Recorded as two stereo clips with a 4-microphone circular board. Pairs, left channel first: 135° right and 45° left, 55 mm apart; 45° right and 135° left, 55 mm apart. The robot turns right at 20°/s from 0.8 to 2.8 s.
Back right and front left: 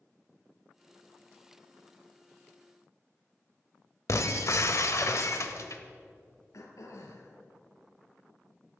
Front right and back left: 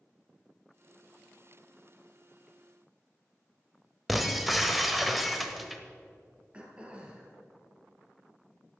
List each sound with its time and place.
4.1 s breaking glass: 135° right, 1.1 m
6.5 s throat clearing: 155° right, 2 m